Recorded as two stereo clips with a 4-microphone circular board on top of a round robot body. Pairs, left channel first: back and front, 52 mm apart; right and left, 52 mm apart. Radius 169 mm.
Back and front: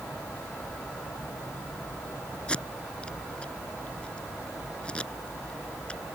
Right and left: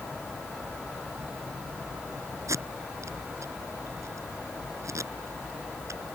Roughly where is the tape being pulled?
Left.